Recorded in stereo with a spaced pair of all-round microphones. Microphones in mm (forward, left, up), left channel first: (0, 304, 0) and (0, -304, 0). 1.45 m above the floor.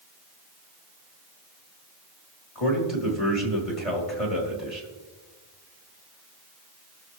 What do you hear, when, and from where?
2.5 s a man speaking: 60° left (ahead or behind), 3 m